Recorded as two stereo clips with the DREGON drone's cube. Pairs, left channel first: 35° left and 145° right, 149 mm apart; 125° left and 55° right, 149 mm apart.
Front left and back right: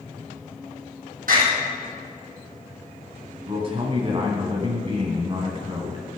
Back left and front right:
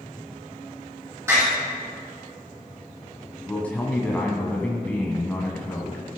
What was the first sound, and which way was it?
A door slam, 125° right.